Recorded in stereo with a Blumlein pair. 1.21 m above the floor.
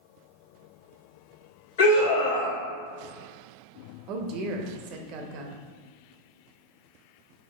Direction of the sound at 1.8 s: 55° left.